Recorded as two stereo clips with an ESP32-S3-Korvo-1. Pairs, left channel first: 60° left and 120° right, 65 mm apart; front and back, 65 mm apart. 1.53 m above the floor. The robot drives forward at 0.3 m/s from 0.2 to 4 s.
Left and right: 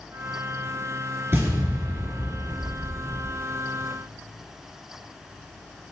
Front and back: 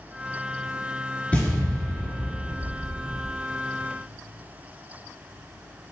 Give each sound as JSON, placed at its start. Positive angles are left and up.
{"t": 1.3, "sound": "an explosion", "azimuth_deg": -65, "distance_m": 4.0}